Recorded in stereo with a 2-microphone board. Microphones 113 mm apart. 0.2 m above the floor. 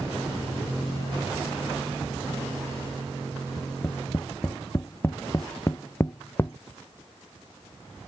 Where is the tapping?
25° left (ahead or behind).